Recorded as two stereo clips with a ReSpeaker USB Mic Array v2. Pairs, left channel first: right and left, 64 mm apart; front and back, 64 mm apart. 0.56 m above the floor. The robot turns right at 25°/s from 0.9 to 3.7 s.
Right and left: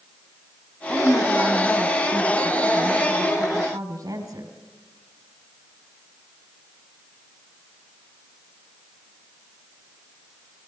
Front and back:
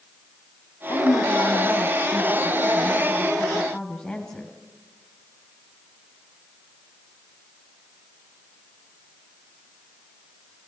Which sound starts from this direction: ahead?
A woman speaking, at 0.9 s.